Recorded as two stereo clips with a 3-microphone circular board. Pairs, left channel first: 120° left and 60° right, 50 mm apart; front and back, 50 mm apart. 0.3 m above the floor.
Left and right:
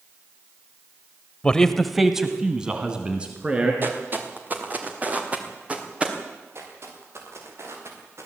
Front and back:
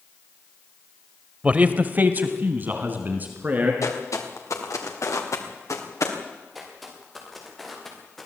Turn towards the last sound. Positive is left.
turn(degrees=-85)